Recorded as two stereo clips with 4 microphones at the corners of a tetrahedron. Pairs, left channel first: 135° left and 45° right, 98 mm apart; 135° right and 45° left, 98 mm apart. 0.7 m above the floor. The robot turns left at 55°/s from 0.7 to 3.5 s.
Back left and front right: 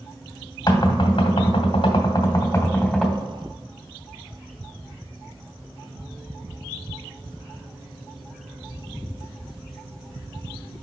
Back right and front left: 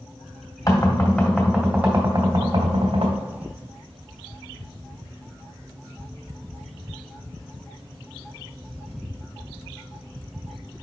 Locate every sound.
0.7 s knocking: 175° left, 1.9 m; by 3.2 s 35° left, 1.9 m